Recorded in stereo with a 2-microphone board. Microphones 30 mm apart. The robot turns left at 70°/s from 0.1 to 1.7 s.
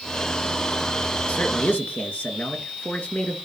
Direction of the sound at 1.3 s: 60° left (ahead or behind).